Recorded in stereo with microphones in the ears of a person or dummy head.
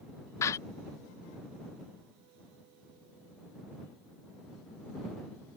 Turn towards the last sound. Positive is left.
turn(degrees=20)  # may be behind; listen again after turning